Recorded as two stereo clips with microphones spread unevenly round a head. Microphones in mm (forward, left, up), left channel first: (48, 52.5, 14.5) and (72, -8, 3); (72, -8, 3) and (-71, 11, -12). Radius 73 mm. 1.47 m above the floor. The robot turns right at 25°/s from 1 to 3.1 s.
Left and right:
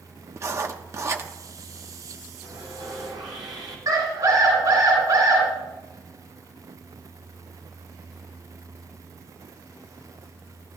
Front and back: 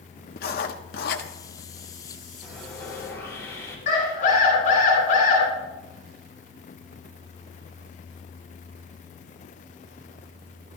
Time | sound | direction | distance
0.4 | writing | 25° right | 1.1 m
2.4 | sawing | 100° right | 4.5 m
3.9 | a scream | 45° right | 7.5 m